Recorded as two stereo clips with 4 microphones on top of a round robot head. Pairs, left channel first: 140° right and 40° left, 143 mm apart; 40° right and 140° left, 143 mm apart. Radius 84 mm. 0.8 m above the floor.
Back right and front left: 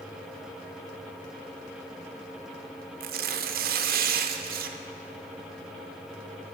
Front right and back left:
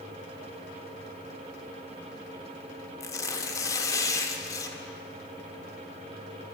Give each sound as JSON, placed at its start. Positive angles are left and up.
{"t": 3.0, "sound": "tearing paper", "azimuth_deg": 25, "distance_m": 0.6}